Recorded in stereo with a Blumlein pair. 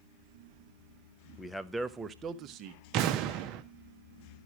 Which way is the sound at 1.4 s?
10° left.